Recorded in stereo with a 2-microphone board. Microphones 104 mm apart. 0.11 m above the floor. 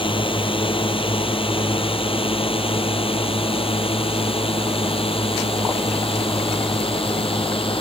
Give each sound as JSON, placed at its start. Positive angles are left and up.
{"t": 0.0, "sound": "a drone", "side_deg": 55}